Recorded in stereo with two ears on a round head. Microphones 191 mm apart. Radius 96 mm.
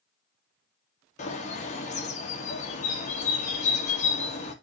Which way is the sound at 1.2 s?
35° left (ahead or behind).